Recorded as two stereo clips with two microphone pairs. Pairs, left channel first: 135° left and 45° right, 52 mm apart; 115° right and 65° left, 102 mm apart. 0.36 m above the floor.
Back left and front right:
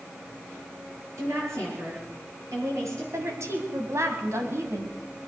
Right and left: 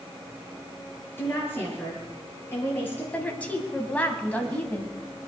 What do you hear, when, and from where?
1.2 s a woman speaking: 45° right, 8 m
3.1 s a woman speaking: 40° right, 2.5 m